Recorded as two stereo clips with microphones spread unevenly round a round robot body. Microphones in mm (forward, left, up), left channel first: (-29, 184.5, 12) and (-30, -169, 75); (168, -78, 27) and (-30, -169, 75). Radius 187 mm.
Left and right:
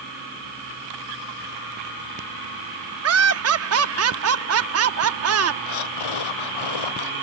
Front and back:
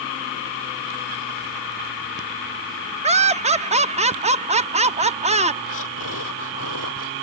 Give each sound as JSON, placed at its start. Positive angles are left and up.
{"t": 3.0, "sound": "laughter", "azimuth_deg": -100}
{"t": 5.7, "sound": "breathing", "azimuth_deg": 65}